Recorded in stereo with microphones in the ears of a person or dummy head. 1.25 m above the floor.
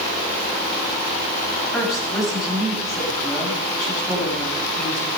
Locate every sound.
1.7 s a woman speaking: 5° left (ahead or behind), 7.5 m